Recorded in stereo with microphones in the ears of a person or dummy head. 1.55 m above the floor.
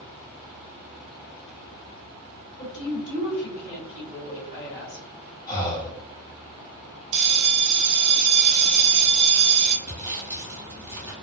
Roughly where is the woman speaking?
Left.